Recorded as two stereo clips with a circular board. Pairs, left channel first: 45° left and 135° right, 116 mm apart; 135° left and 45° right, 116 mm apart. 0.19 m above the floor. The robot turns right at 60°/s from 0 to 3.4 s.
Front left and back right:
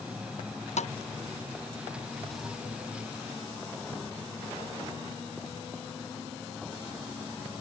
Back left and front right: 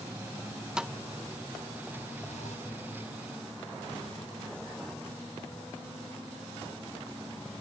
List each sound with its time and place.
0.8 s a thud: 40° left; by 2.6 s 145° left